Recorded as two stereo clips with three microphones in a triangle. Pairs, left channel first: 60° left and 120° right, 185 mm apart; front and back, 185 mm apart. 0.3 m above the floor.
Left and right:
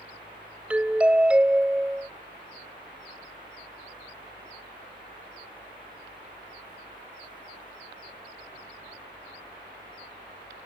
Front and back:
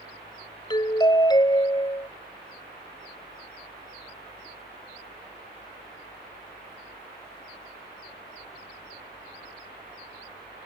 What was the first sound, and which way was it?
A doorbell, 40° right.